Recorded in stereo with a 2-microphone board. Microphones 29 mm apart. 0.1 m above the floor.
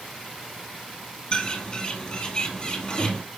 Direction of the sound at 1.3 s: 30° left (ahead or behind).